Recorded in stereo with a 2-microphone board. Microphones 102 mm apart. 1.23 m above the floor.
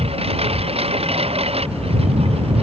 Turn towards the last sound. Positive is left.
turn(degrees=-80)